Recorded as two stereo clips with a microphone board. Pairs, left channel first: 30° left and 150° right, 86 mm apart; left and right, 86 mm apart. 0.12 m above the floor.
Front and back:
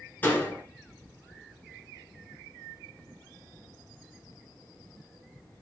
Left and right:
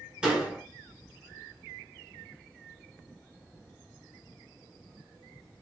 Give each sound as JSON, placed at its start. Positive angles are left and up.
{"t": 0.2, "sound": "a door slam", "azimuth_deg": -20, "distance_m": 1.3}